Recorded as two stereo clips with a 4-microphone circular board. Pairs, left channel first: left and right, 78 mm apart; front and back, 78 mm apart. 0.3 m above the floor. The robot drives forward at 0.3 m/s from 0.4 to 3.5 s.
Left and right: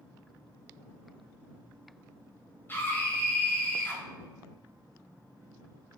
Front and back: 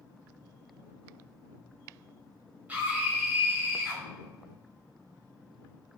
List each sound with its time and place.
2.7 s a scream: 125° left, 1.2 m; by 4.0 s 140° left, 1.3 m